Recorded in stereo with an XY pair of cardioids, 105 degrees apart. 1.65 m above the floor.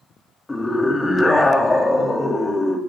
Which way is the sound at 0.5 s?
20° left.